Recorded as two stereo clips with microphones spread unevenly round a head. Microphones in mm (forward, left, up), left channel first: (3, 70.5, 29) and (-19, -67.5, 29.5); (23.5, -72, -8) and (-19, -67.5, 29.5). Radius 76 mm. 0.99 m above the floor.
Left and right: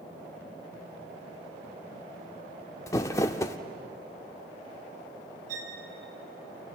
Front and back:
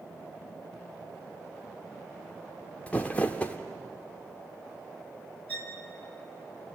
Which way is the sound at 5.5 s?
60° right.